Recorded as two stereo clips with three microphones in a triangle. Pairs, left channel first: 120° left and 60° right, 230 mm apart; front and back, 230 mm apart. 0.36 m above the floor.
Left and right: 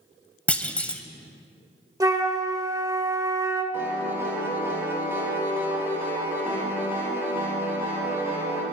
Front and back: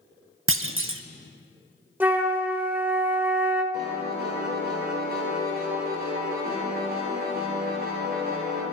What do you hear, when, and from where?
0.5 s a clunk: 155° right, 0.5 m
2.0 s a flute: 110° right, 1.0 m
3.7 s a piano: 140° right, 3 m